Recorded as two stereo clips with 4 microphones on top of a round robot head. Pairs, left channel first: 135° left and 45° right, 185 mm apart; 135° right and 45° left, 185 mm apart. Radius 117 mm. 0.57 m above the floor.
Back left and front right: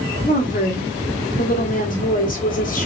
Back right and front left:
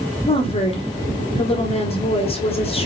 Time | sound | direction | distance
0.3 | a woman speaking | 170° left | 1.7 m